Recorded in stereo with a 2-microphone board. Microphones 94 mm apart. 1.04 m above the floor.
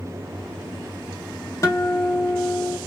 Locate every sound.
1.6 s a guitar: 35° left (ahead or behind), 0.9 m